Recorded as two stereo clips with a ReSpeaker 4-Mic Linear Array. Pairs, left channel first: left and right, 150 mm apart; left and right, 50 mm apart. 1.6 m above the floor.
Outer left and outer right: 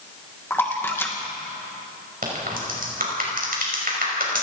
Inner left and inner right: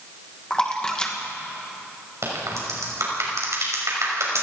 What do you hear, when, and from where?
0.5 s a splash: 15° left (ahead or behind), 2.5 m
2.2 s a crack: 75° right (ahead or behind), 6 m